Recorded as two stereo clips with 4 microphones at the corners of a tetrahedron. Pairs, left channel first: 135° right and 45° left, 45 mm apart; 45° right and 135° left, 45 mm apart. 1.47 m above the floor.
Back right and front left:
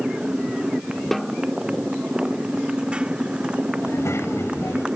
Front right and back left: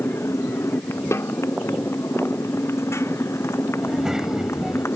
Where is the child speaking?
145° right.